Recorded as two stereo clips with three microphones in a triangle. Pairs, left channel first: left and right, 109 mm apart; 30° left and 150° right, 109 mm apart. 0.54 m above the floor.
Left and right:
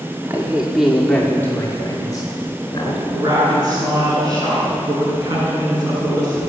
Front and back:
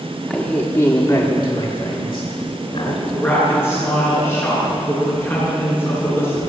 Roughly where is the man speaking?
Ahead right.